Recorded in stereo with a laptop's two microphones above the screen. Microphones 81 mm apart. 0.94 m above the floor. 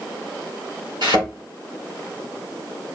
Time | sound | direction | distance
1.0 | a thud | 65° right (ahead or behind) | 4 m